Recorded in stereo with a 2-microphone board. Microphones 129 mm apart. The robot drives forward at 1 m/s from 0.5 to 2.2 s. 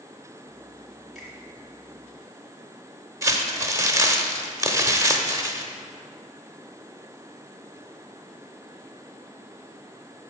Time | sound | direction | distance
1.1 | a finger snap | centre (ahead or behind) | 2.5 m
3.2 | crumpling | 25° right (ahead or behind) | 0.8 m